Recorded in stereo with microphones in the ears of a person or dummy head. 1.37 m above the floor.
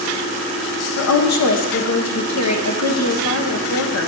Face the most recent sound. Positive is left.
turn(degrees=70)  # may be behind; listen again after turning